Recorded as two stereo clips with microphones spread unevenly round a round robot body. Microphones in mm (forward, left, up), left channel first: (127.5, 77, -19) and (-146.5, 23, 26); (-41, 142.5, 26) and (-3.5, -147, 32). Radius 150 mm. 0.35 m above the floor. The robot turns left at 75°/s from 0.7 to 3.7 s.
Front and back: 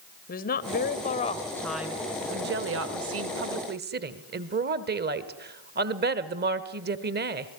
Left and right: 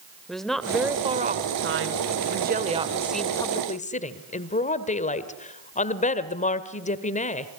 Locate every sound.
0.3 s a woman speaking: 10° left, 1.6 m; by 7.5 s 145° left, 1.6 m